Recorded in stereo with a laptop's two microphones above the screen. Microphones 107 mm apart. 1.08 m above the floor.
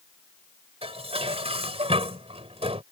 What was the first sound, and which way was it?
Dishes clattering, 65° right (ahead or behind).